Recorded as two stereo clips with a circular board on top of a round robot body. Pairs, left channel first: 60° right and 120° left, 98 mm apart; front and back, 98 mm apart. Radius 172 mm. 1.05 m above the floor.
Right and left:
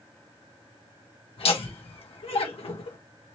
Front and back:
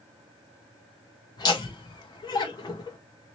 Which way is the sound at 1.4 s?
45° right.